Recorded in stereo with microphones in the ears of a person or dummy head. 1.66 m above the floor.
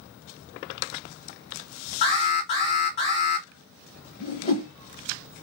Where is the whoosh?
35° left (ahead or behind), 0.8 m.